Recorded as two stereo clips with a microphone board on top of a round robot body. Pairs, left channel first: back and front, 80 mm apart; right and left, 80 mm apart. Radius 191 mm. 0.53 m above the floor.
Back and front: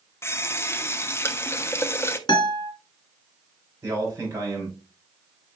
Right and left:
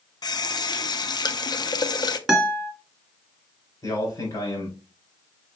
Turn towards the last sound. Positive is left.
turn(degrees=-55)